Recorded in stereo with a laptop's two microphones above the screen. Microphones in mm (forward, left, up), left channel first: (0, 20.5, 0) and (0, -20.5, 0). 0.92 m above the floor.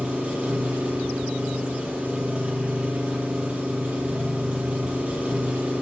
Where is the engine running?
30° right (ahead or behind), 9.5 m.